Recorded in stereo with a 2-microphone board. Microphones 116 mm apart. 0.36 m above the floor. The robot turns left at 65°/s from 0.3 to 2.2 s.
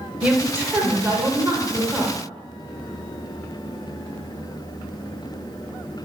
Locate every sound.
0.2 s a woman speaking: 10° right (ahead or behind), 0.9 m